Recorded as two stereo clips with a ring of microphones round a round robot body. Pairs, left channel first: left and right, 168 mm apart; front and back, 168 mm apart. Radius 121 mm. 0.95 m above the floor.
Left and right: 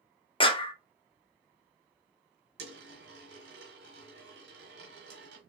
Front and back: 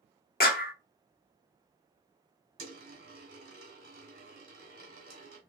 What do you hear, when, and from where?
0.4 s a clap: 30° left, 1.0 m
2.6 s a dropped coin: 120° right, 1.3 m